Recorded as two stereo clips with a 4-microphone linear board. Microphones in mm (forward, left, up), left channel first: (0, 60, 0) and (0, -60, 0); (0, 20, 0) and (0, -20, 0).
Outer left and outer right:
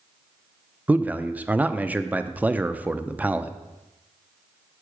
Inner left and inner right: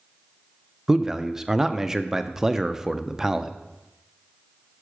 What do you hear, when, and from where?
0.9 s a man speaking: 15° right (ahead or behind), 0.6 m